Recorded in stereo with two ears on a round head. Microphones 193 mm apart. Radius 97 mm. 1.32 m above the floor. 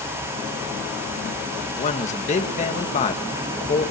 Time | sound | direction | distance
1.8 | a man speaking | 35° left (ahead or behind) | 1.9 m